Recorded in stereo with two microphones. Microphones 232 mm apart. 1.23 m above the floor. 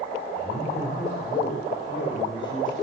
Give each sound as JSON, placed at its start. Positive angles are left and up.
{"t": 0.4, "sound": "a man speaking", "side_deg": 30, "distance_m": 4.5}